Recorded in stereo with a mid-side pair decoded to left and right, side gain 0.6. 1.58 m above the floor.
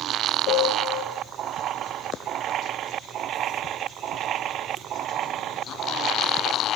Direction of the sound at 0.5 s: 70° left.